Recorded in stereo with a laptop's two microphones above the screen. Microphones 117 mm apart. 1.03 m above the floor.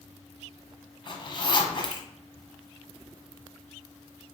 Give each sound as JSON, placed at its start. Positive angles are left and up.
{"t": 1.1, "sound": "a zipper", "side_deg": 35, "distance_m": 0.7}